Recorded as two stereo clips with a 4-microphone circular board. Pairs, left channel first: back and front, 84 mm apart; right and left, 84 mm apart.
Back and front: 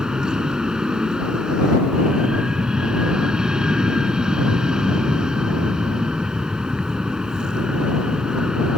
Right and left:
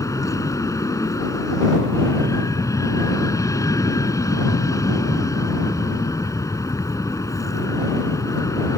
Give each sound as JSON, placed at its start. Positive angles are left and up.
{"t": 0.0, "sound": "an aircraft", "azimuth_deg": -80}